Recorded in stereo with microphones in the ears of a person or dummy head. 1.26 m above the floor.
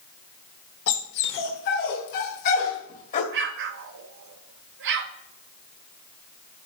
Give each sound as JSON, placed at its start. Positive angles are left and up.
{"t": 0.9, "sound": "a dog barking", "side_deg": 65, "distance_m": 1.6}
{"t": 3.3, "sound": "an explosion", "side_deg": -60, "distance_m": 0.9}